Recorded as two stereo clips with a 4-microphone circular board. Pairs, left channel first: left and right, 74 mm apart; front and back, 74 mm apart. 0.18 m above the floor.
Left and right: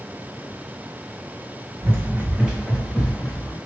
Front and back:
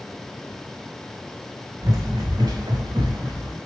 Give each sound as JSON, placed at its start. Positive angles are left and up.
{"t": 1.8, "sound": "running footsteps", "azimuth_deg": -140, "distance_m": 0.6}